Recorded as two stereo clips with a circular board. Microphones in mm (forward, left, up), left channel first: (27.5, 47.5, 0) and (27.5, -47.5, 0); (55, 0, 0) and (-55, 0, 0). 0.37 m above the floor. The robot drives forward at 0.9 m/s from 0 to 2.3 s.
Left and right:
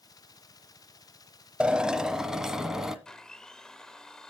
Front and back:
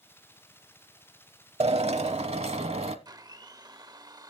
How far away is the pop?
I don't hear a pop.